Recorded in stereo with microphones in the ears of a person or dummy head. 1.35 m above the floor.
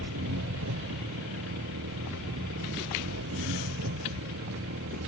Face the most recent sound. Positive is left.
turn(degrees=-70)  # may be behind; listen again after turning